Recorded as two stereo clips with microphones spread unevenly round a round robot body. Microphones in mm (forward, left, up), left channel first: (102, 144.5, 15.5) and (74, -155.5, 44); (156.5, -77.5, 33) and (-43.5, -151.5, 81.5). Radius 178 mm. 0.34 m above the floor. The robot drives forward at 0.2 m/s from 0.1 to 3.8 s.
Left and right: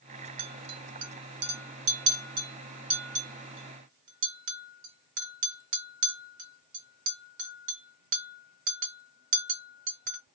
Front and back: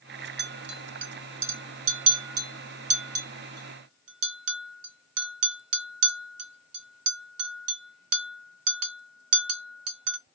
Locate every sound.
0.4 s a clink: 115° right, 0.7 m; by 10.2 s 155° right, 1.1 m